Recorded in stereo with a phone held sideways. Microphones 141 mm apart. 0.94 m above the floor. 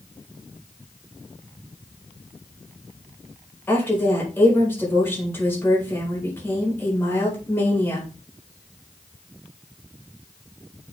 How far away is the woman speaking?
About 5 m.